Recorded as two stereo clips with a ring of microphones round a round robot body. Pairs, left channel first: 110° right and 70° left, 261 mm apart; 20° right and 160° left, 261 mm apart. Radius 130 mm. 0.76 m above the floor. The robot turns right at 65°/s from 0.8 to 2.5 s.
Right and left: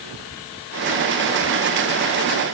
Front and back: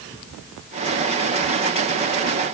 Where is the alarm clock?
No alarm clock in this recording.